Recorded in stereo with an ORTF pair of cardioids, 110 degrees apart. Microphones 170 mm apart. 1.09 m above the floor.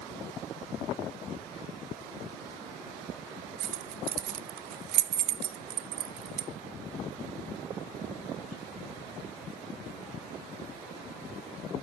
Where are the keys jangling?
70° right, 0.6 m.